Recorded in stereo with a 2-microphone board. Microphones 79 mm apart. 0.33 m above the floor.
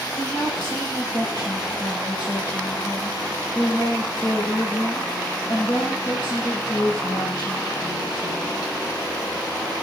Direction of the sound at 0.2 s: 60° left (ahead or behind).